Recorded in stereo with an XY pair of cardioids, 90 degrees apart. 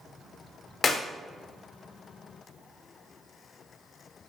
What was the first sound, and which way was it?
A clap, 45° left.